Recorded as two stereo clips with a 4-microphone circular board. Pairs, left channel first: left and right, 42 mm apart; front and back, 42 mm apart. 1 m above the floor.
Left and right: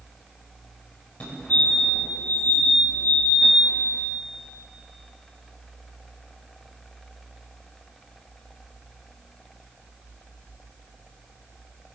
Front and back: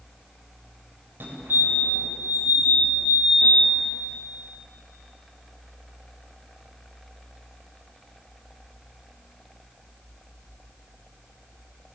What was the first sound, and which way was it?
A fire alarm, 145° left.